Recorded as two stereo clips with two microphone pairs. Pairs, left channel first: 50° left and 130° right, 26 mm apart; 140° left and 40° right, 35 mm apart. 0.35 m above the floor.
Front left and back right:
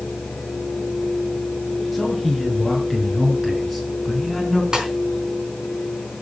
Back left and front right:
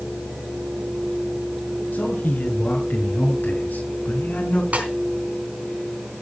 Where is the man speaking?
140° left, 6.5 m.